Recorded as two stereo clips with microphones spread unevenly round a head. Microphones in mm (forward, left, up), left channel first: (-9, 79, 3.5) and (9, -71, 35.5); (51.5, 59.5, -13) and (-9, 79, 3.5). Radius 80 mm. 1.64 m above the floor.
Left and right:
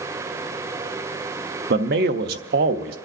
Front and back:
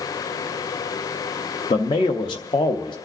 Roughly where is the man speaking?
Ahead right.